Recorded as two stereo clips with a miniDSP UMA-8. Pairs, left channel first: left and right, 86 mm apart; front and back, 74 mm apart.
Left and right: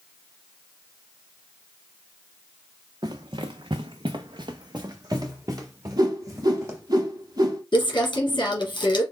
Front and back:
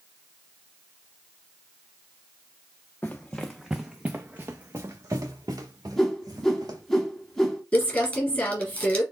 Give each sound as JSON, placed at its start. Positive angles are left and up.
{"t": 3.0, "sound": "running footsteps", "azimuth_deg": -65, "distance_m": 0.9}
{"t": 6.0, "sound": "a whoosh", "azimuth_deg": -85, "distance_m": 1.2}
{"t": 7.7, "sound": "crumpling", "azimuth_deg": 65, "distance_m": 1.9}